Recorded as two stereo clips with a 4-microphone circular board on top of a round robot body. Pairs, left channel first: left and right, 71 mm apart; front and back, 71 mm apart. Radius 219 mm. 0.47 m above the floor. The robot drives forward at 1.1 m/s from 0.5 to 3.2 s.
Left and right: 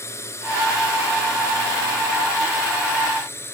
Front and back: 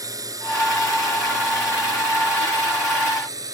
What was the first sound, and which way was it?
A drone, 140° left.